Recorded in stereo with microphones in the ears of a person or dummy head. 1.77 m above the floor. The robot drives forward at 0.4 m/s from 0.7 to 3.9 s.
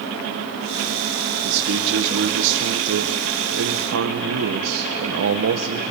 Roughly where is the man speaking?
Right.